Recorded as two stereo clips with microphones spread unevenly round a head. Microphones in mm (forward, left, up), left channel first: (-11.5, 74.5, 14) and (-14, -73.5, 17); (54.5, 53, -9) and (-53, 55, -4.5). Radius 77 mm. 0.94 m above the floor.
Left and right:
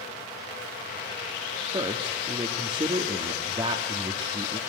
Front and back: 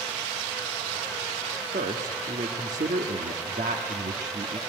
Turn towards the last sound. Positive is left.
turn(degrees=-150)